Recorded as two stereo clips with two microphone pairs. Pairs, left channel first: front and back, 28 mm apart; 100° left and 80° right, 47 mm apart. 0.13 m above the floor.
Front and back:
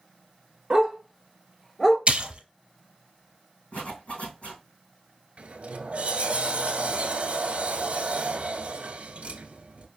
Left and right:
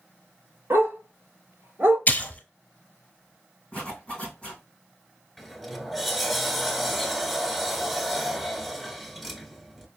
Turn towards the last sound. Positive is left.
turn(degrees=-175)